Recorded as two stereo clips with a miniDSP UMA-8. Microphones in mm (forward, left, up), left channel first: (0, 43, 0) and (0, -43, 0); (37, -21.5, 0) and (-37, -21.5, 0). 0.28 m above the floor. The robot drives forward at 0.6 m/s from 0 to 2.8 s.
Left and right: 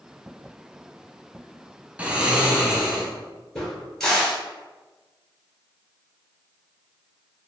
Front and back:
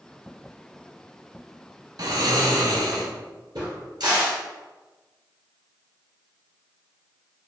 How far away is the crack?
About 1.7 m.